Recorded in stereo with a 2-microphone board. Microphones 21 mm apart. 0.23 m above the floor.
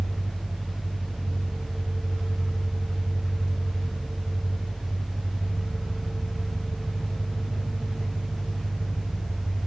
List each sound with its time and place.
0.0 s an engine running: 80° right, 3.5 m